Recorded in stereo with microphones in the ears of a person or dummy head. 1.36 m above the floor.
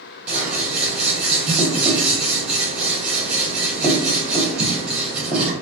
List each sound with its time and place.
0.3 s scissors: 10° right (ahead or behind), 1.1 m